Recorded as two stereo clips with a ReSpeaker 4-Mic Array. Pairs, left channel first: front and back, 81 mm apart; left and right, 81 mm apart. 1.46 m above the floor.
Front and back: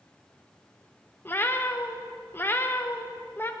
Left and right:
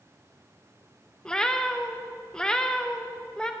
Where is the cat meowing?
20° left, 0.7 m.